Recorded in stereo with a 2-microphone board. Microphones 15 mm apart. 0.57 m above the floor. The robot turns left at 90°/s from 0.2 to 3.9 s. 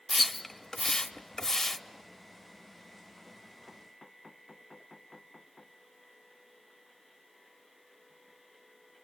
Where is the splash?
Centre (ahead or behind), 0.9 m; by 1.8 s 25° left (ahead or behind), 0.9 m.